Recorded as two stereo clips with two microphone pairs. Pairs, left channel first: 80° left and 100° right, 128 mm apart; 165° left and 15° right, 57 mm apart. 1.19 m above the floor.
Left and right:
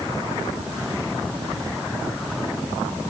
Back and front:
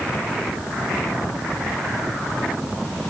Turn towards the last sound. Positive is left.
No sound to turn to.